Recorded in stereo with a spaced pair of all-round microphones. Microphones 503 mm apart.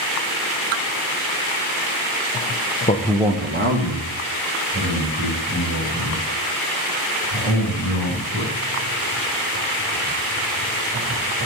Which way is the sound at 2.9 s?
15° left (ahead or behind).